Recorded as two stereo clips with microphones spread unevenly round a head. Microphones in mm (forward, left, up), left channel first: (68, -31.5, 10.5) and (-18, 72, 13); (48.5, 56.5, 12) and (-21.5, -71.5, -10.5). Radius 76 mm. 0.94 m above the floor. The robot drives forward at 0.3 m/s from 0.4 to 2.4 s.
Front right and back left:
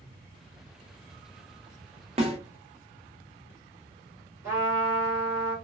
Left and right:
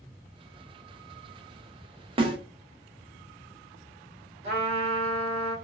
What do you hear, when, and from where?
2.2 s a snare drum: 175° right, 0.6 m
4.4 s a trumpet: 155° right, 1.5 m